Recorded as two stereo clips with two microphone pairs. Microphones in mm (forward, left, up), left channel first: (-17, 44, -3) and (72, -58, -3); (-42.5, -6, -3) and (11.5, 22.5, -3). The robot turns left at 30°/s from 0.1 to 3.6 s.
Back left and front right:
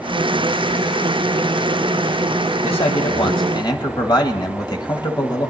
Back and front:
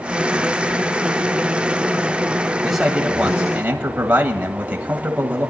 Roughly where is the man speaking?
Behind left.